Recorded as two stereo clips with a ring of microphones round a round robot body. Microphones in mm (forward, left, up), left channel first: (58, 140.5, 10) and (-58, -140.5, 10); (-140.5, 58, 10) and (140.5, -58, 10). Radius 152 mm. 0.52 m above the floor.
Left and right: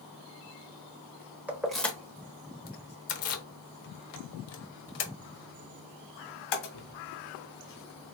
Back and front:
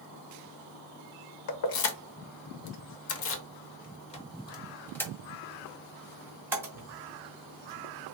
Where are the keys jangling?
165° left, 1.2 m; by 8.2 s 55° left, 3 m.